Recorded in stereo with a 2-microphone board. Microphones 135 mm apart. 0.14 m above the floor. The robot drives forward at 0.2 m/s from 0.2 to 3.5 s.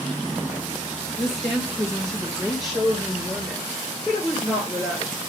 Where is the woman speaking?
Centre (ahead or behind), 2.5 m.